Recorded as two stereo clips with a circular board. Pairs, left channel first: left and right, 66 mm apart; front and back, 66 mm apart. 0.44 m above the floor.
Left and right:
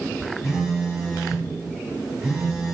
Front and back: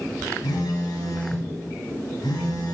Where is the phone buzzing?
5° right, 1.1 m.